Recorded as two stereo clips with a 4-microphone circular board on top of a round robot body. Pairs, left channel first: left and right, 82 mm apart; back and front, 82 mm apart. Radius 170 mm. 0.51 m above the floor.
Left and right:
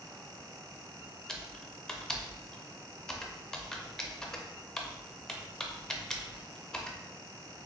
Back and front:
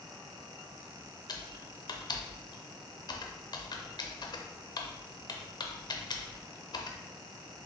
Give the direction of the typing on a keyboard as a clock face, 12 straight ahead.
6 o'clock.